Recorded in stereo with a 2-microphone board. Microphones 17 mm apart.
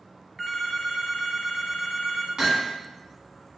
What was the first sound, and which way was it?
A phone ringing, centre (ahead or behind).